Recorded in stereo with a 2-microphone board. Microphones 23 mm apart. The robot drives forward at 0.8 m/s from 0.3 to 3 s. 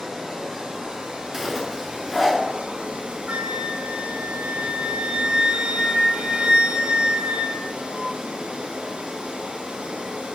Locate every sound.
0.0 s running water: 40° right (ahead or behind), 4 m; by 10.4 s 65° right (ahead or behind), 3 m
1.3 s a zipper: 10° right (ahead or behind), 1.4 m
3.3 s a flute: 60° right (ahead or behind), 0.7 m